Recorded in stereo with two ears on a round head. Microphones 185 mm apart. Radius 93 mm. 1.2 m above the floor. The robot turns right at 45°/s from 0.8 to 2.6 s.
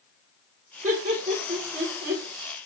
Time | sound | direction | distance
0.8 | laughter | 35° right (ahead or behind) | 1.1 m